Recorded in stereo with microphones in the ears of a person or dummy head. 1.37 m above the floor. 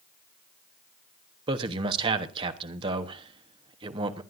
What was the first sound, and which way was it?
A man speaking, 25° right (ahead or behind).